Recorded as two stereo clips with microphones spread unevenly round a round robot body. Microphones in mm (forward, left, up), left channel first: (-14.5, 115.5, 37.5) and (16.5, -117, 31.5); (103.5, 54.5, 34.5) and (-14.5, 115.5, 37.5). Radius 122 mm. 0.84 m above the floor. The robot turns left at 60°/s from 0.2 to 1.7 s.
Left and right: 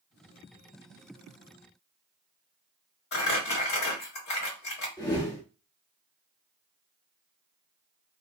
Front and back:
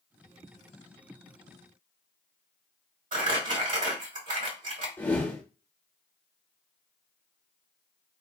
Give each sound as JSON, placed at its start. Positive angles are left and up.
{"t": 3.1, "sound": "crumpling", "azimuth_deg": 140, "distance_m": 1.9}
{"t": 5.0, "sound": "a whoosh", "azimuth_deg": 35, "distance_m": 1.1}